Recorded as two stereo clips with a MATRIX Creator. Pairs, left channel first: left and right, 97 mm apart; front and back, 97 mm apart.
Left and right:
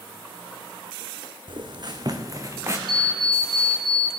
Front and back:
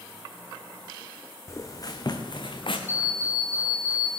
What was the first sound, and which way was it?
Footsteps, 60° right.